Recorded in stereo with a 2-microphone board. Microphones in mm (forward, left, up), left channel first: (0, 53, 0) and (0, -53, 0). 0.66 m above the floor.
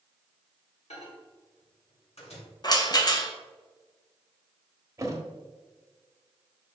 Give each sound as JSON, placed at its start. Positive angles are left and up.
{"t": 0.9, "sound": "a microwave", "side_deg": 75, "distance_m": 2.5}
{"t": 2.6, "sound": "a rattle", "side_deg": 40, "distance_m": 1.2}
{"t": 5.0, "sound": "a thud", "side_deg": -30, "distance_m": 1.4}